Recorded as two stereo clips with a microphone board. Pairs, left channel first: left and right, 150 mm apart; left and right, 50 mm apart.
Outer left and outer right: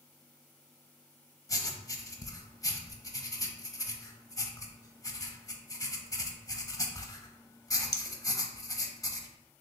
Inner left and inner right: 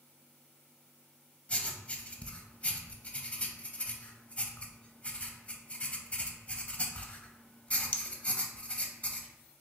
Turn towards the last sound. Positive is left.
turn(degrees=25)  # may be behind; listen again after turning